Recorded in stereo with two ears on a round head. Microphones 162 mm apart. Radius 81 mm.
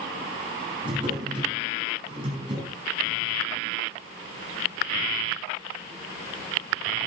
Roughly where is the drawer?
Right.